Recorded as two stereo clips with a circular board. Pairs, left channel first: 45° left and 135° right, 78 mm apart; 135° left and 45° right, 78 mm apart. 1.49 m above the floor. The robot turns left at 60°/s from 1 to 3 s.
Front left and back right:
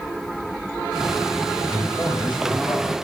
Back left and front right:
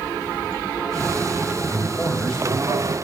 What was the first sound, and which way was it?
A man speaking, 85° left.